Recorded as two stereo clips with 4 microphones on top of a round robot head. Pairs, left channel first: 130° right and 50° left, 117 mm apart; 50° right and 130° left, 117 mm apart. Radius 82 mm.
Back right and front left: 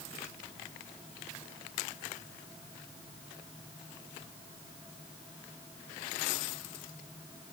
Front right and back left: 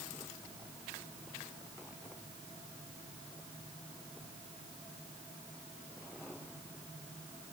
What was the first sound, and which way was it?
Only background noise.